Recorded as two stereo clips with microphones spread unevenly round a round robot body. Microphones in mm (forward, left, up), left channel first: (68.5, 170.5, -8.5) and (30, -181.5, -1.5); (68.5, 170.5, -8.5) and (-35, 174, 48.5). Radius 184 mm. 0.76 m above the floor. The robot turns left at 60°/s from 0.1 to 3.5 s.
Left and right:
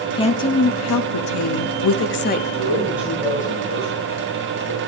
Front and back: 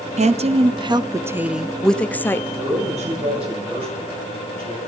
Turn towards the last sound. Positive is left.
turn(degrees=145)